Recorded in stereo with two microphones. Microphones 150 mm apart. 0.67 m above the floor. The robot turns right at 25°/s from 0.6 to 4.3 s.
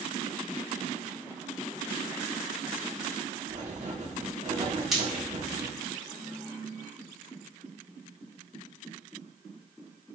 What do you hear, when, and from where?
3.5 s writing: 55° right (ahead or behind), 1.1 m; by 5.7 s 50° right (ahead or behind), 1.1 m
4.9 s frying: 5° right (ahead or behind), 1.6 m